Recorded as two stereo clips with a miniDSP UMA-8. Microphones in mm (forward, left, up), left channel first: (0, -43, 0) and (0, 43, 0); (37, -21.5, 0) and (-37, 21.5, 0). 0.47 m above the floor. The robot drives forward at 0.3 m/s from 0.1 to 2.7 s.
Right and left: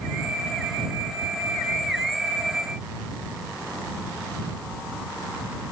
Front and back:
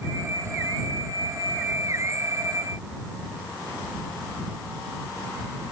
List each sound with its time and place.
Only background noise.